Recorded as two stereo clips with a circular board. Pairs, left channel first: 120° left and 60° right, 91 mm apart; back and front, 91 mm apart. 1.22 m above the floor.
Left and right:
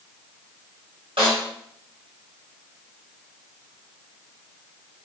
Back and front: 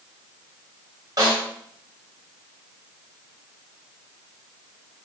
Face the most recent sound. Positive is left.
turn(degrees=-45)